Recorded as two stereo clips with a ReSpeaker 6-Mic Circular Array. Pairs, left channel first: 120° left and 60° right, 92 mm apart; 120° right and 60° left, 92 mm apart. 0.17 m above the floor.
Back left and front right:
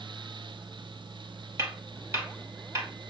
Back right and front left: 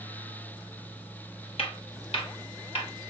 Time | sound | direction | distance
1.6 | footsteps | 120° right | 3 m